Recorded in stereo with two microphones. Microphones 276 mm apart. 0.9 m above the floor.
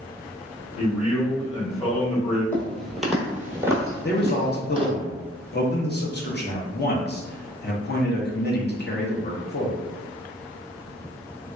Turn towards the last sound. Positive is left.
turn(degrees=35)  # may be behind; listen again after turning